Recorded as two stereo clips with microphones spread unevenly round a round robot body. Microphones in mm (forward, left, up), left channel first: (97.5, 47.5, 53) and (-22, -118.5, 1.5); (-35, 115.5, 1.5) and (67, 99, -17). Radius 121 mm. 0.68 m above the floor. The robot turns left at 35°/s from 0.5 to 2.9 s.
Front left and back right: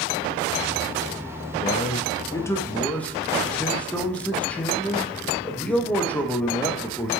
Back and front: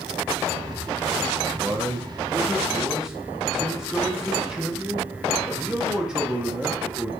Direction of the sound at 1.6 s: 5° right.